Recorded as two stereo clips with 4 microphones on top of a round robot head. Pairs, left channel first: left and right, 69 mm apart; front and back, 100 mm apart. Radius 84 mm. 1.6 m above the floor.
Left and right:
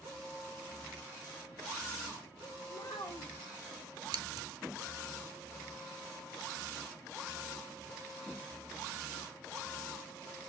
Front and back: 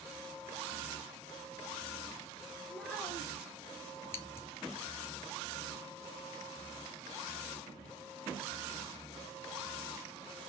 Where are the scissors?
70° right, 0.6 m.